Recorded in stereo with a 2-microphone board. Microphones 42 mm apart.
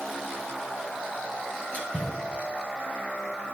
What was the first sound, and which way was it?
A splash, 40° left (ahead or behind).